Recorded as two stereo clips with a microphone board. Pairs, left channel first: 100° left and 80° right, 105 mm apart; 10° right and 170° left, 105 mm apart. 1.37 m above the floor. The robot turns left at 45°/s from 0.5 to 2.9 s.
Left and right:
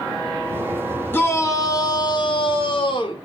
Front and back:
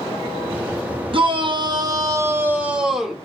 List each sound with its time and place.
1.1 s a shout: 165° left, 0.7 m; by 3.1 s 85° left, 0.7 m